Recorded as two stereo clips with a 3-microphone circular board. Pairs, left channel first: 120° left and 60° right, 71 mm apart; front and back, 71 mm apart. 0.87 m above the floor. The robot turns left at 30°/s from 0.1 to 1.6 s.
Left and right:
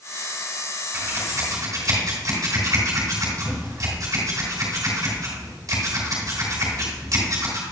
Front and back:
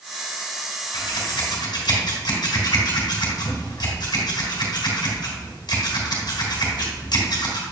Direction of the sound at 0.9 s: 5° right.